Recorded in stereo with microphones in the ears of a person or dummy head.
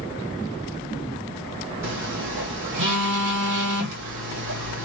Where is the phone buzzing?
65° right (ahead or behind), 1.9 m.